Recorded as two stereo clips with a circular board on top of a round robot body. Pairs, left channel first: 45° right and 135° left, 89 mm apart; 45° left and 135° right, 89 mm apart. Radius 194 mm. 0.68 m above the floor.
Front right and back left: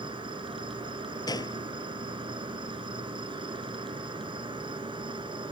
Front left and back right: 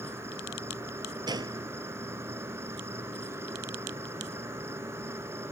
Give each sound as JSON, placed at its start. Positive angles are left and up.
{"t": 0.0, "sound": "an insect", "azimuth_deg": 165}
{"t": 1.3, "sound": "a gunshot", "azimuth_deg": -90}